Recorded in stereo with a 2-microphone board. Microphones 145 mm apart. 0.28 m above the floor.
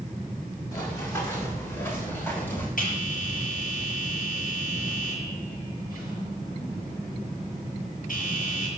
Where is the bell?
75° left (ahead or behind), 8 m.